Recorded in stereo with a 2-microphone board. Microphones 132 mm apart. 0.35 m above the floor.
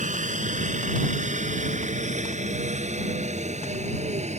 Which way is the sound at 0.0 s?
70° right (ahead or behind).